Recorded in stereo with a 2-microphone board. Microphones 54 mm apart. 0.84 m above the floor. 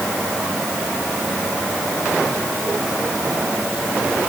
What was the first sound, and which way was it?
Only background noise.